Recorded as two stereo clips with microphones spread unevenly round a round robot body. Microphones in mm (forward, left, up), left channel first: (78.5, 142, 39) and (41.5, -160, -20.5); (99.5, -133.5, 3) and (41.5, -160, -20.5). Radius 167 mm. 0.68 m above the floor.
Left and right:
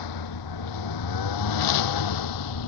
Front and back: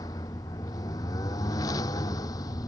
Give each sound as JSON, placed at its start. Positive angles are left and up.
{"t": 0.0, "sound": "a lawn mower", "azimuth_deg": 80}